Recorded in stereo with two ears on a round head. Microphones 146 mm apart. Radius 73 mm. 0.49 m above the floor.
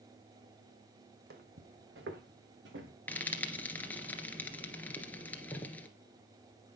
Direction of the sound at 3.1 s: 10° left (ahead or behind).